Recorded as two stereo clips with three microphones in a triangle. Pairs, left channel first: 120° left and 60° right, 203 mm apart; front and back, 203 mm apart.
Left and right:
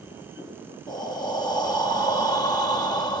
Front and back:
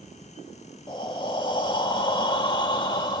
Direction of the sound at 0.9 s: 60° left.